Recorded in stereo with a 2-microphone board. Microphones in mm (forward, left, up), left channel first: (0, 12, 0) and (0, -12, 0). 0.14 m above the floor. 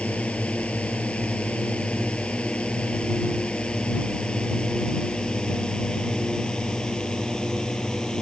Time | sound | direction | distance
0.0 | a drone | 55° left (ahead or behind) | ?